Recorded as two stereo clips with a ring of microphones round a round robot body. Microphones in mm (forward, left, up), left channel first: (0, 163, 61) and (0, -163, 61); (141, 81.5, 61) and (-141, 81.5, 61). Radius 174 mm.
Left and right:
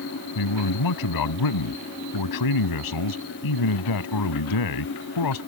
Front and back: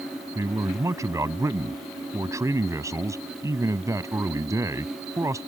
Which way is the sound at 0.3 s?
100° left.